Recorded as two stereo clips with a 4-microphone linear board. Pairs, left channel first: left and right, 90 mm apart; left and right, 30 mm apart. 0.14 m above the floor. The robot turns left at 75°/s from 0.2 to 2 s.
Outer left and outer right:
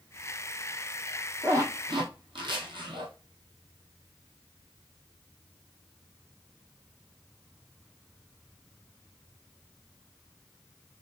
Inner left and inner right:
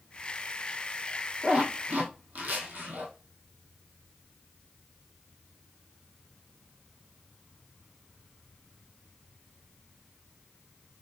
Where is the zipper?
30° right (ahead or behind), 1.3 m; by 3.1 s 70° right (ahead or behind), 1.3 m.